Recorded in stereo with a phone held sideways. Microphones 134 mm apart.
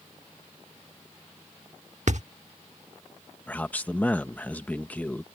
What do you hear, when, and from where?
2.1 s a thud: 60° right (ahead or behind)
3.5 s a man speaking: 10° left (ahead or behind)